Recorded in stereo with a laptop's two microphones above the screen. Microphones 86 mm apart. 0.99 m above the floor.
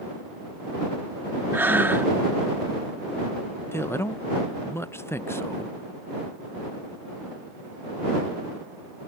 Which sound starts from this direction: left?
A man speaking, at 3.7 s.